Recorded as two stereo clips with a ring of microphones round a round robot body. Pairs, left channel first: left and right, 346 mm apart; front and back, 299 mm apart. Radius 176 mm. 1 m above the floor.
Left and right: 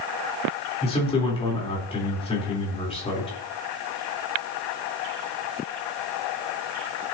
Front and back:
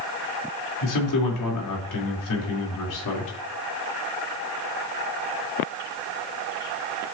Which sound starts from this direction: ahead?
A man speaking, at 0.8 s.